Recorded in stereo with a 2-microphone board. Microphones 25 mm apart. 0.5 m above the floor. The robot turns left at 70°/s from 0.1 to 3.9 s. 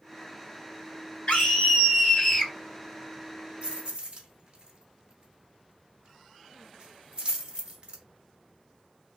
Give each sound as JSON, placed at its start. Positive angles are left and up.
{"t": 1.3, "sound": "a scream", "azimuth_deg": 105, "distance_m": 1.3}
{"t": 3.6, "sound": "keys jangling", "side_deg": -50, "distance_m": 0.9}